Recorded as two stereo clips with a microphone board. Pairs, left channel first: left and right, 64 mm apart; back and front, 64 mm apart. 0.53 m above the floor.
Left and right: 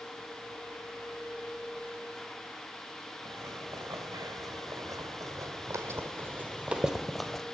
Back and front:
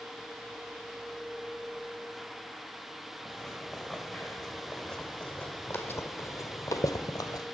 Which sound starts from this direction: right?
Footsteps, at 3.2 s.